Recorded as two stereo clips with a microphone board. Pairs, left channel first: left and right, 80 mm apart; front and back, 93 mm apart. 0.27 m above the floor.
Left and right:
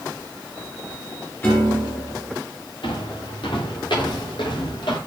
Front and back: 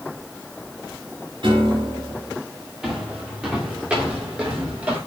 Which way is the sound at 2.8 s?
95° left.